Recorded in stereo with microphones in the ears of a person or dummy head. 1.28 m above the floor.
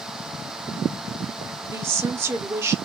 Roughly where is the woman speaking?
Centre.